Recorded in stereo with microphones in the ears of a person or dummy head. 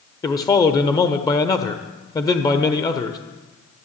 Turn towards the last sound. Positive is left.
turn(degrees=20)  # may be behind; listen again after turning